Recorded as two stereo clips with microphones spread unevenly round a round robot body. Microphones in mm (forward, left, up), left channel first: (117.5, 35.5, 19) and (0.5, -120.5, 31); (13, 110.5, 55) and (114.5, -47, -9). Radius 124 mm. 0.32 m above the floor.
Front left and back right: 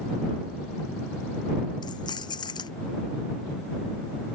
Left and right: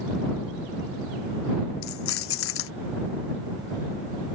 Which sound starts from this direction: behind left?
Keys jangling, at 1.8 s.